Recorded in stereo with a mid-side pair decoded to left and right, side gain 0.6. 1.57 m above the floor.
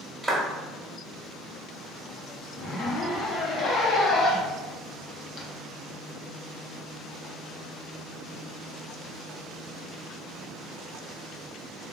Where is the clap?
Straight ahead, 1.8 m.